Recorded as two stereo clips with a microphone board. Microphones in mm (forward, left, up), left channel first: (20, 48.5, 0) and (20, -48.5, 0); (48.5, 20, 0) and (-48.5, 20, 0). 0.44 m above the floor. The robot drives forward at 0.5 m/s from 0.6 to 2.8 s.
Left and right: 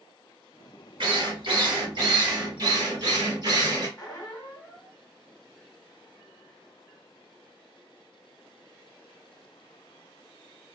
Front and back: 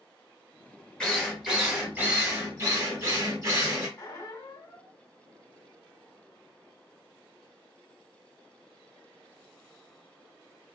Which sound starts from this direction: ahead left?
A squeak, at 4.0 s.